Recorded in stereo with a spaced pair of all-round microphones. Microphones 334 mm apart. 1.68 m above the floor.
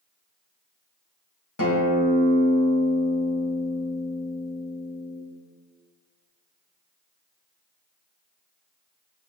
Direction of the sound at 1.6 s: 70° left (ahead or behind).